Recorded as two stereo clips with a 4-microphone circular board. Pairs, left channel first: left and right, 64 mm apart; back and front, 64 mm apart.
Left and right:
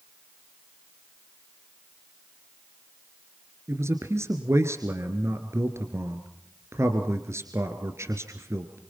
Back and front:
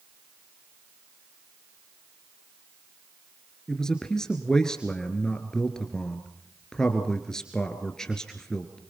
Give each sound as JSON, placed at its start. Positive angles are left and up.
{"t": 3.7, "sound": "a man speaking", "azimuth_deg": -105, "distance_m": 1.8}